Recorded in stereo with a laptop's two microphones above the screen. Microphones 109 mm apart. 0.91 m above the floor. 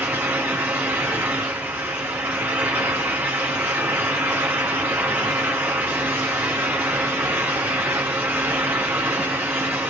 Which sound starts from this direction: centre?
A fan, at 0.0 s.